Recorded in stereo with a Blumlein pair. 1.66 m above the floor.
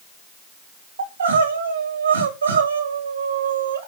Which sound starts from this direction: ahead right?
Crying, at 1.0 s.